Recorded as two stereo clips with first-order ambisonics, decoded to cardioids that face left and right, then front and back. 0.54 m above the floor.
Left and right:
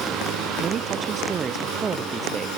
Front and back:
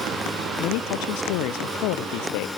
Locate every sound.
0.6 s a man speaking: 30° right; by 2.5 s 15° right